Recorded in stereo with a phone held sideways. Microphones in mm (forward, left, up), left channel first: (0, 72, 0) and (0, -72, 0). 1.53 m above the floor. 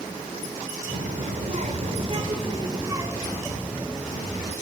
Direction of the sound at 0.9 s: 65° right (ahead or behind).